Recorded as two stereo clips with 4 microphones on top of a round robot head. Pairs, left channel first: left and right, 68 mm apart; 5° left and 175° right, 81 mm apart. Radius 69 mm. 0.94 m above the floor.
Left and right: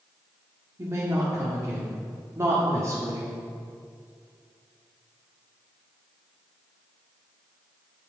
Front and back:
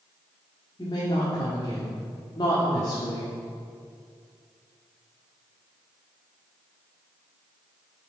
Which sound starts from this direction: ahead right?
A woman speaking, at 0.8 s.